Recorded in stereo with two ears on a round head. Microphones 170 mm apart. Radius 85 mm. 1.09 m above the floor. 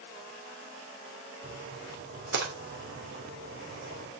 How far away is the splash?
About 3 m.